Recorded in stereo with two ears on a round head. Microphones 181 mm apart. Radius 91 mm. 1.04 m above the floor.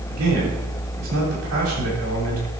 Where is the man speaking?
80° right, 7 m.